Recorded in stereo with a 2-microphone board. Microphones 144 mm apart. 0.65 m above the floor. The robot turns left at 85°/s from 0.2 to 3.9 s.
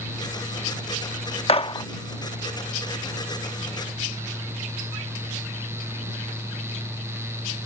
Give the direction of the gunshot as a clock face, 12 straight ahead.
10 o'clock.